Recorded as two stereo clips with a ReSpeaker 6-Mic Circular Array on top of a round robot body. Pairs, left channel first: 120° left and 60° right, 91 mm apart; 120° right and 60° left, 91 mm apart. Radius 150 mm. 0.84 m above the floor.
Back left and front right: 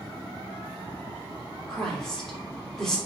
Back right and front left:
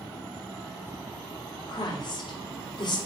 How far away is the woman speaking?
About 3 m.